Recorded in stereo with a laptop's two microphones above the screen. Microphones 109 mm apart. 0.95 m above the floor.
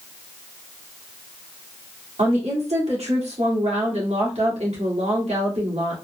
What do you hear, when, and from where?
2.2 s a woman speaking: 75° right (ahead or behind), 1.7 m